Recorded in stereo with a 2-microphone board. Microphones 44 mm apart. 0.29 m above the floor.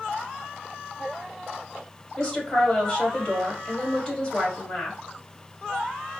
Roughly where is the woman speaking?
Left.